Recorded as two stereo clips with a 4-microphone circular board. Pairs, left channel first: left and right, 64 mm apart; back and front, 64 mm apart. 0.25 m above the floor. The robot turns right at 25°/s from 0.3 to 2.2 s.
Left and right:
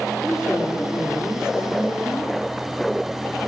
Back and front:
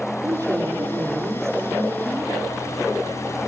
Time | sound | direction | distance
0.2 | a woman speaking | 15° left | 7.5 m